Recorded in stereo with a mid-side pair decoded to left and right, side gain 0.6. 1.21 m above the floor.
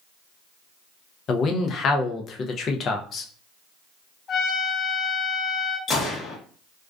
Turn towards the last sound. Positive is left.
turn(degrees=40)